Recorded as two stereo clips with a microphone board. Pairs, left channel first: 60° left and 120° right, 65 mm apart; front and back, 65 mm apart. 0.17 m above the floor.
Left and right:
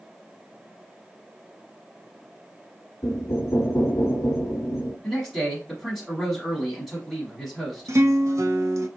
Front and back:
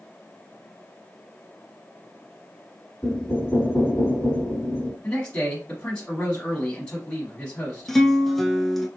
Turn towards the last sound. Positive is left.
turn(degrees=-85)